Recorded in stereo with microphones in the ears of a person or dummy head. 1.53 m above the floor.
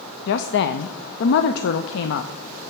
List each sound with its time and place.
0.3 s a woman speaking: 75° left (ahead or behind), 0.5 m